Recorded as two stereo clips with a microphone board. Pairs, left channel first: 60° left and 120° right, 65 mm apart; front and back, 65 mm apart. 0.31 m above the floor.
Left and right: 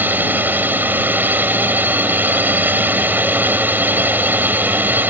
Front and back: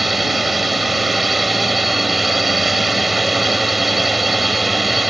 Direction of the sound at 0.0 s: 95° right.